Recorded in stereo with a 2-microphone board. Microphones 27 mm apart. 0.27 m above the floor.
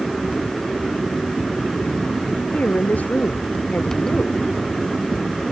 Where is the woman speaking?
75° left (ahead or behind).